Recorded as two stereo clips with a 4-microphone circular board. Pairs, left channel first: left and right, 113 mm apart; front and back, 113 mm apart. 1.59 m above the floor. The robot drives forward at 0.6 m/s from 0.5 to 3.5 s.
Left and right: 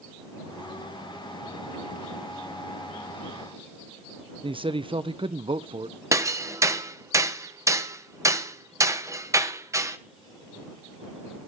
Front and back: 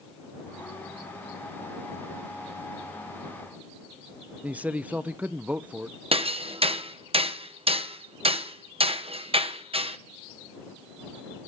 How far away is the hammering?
About 1.0 m.